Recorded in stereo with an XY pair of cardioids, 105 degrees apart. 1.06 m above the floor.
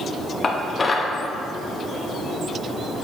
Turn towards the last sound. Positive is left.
turn(degrees=30)